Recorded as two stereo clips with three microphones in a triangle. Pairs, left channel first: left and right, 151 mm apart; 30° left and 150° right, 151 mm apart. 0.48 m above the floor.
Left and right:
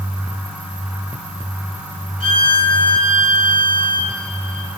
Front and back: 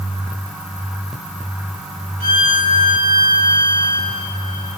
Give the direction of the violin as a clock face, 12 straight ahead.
3 o'clock.